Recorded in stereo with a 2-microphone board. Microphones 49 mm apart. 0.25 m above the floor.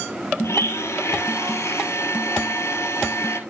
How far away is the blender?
About 1.0 m.